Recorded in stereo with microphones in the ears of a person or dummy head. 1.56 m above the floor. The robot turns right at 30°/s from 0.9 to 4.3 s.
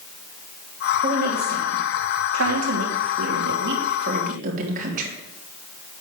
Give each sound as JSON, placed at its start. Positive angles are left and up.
{"t": 1.0, "sound": "a woman speaking", "side_deg": -35, "distance_m": 3.5}